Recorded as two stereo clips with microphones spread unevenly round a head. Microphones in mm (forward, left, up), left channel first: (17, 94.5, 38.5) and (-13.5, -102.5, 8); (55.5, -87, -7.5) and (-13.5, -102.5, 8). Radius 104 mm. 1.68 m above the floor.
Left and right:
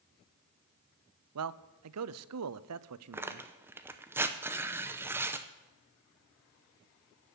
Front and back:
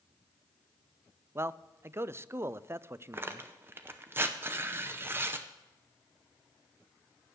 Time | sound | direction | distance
1.4 | a man speaking | 115° right | 0.6 m
3.1 | tearing paper | 175° left | 0.6 m